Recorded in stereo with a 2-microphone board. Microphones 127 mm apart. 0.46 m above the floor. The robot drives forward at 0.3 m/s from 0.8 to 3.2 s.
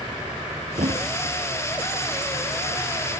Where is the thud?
70° right (ahead or behind).